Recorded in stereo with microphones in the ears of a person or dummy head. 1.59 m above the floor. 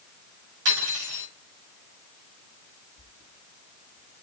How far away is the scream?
No scream in this recording.